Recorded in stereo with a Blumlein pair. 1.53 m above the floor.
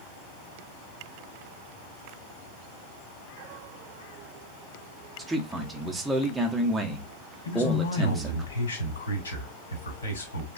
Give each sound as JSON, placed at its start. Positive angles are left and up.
{"t": 5.2, "sound": "a man speaking", "azimuth_deg": -5, "distance_m": 0.7}
{"t": 7.5, "sound": "a man speaking", "azimuth_deg": 70, "distance_m": 1.2}